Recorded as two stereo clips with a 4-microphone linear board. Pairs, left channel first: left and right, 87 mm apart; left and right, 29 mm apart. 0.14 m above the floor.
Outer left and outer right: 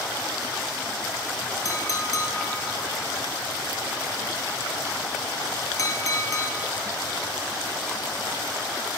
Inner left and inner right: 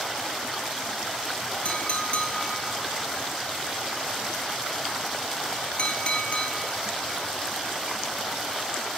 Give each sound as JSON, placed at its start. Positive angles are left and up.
{"t": 1.6, "sound": "a clink", "side_deg": 40, "distance_m": 2.5}